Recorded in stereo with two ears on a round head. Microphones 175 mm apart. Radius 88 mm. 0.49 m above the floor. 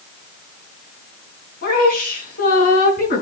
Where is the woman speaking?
45° left (ahead or behind), 4.5 m.